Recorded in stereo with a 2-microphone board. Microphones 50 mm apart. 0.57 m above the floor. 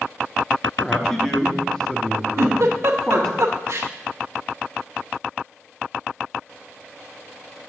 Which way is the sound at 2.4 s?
70° right (ahead or behind).